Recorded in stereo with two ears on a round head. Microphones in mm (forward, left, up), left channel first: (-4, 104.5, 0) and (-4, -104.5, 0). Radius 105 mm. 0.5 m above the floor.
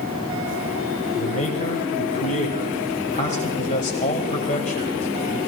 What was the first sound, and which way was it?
A man speaking, 30° left (ahead or behind).